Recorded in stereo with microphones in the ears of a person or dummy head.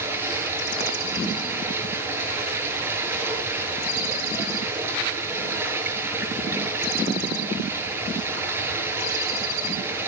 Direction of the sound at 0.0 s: 10° right (ahead or behind).